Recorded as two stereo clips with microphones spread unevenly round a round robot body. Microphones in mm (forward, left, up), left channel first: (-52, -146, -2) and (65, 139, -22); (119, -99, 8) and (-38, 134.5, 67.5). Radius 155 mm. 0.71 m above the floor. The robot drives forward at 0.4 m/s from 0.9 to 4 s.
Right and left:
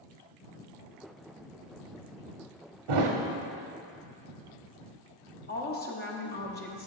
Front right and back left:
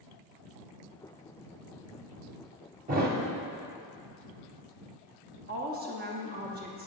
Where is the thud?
70° left, 1.0 m; by 3.2 s 75° left, 1.0 m.